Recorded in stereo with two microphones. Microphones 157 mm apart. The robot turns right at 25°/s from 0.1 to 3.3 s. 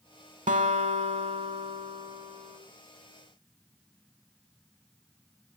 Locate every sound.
0.5 s a guitar: 80° right, 0.8 m; by 2.6 s 25° right, 0.8 m